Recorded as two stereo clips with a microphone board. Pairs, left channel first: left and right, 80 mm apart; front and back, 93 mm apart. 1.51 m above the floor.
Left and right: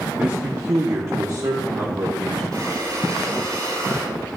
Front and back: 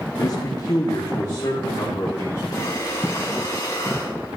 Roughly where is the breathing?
Ahead right.